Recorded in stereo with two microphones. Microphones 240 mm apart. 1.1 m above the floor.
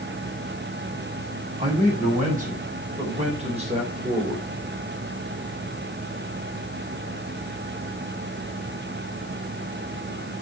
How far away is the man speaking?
About 6.5 m.